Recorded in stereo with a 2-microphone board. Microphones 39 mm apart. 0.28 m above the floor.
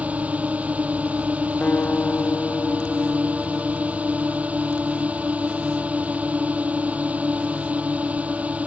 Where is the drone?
40° right (ahead or behind).